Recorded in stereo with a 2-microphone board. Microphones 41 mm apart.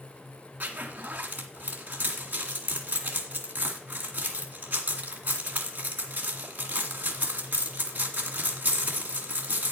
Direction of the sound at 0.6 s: 50° right (ahead or behind).